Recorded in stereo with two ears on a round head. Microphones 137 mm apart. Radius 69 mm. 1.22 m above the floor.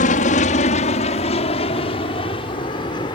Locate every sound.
0.0 s an aircraft: 55° left (ahead or behind); by 3.1 s 30° left (ahead or behind)